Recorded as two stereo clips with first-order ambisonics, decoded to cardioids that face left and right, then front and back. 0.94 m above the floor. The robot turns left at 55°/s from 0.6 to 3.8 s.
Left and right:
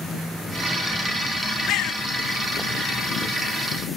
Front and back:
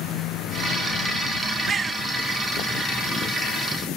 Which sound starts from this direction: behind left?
A bird, at 1.7 s.